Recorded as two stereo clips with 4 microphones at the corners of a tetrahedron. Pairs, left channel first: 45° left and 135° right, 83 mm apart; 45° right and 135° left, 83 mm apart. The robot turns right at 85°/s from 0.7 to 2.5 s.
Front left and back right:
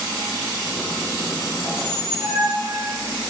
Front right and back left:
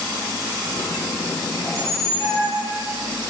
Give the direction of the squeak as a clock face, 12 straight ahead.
3 o'clock.